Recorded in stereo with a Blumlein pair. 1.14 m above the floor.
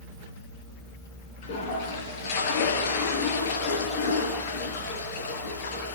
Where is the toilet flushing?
50° left, 6 m.